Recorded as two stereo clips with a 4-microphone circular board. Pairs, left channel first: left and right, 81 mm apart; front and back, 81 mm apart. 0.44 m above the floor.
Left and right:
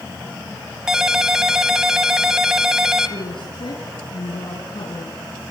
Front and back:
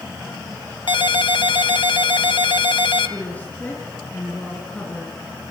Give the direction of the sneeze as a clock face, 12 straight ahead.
No sneeze in this recording.